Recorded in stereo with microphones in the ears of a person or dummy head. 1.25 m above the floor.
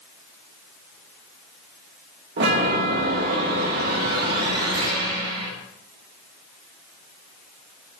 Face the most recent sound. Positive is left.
turn(degrees=-60)  # may be behind; listen again after turning